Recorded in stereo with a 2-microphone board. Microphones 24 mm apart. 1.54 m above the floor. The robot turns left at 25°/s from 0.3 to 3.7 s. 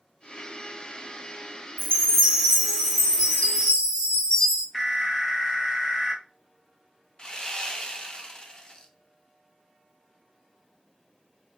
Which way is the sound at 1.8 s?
80° left.